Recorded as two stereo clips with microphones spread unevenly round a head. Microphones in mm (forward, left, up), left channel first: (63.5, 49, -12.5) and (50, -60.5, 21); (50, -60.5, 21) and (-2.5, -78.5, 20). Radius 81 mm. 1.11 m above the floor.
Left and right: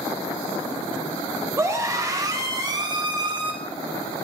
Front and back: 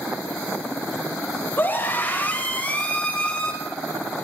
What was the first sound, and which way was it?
A scream, 35° right.